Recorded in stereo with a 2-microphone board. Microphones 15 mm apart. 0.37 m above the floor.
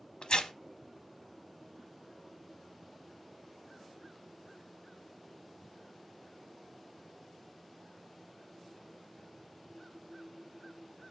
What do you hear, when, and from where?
0.2 s tearing paper: 75° left (ahead or behind), 0.7 m